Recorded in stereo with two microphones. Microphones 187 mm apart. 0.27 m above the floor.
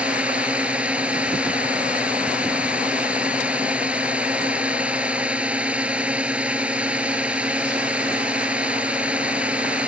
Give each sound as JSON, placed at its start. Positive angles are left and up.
{"t": 0.0, "sound": "a drone", "side_deg": -5}